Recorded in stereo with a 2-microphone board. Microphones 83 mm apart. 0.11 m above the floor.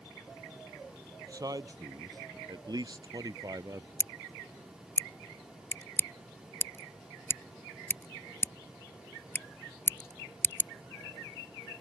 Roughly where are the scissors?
Left.